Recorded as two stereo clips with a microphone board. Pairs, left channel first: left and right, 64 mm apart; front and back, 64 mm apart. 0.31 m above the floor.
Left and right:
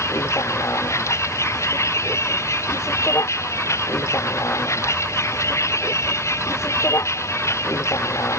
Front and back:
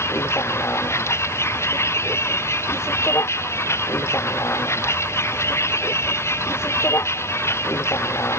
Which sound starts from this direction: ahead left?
A vehicle, at 0.0 s.